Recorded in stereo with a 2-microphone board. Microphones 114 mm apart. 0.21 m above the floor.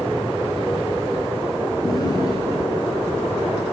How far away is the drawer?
About 2 m.